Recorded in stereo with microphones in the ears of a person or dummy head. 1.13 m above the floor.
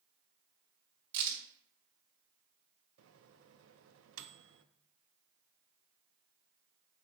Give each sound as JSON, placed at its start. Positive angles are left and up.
{"t": 1.1, "sound": "a crack", "side_deg": -65, "distance_m": 3.0}
{"t": 3.0, "sound": "a microwave", "side_deg": -80, "distance_m": 0.6}